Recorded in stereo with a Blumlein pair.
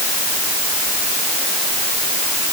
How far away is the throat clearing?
No throat clearing in this recording.